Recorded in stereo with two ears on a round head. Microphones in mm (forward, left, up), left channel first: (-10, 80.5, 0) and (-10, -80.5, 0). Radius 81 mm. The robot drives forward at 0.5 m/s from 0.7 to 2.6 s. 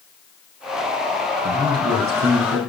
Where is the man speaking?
55° right (ahead or behind), 5 m; by 2.6 s 60° right (ahead or behind), 5 m.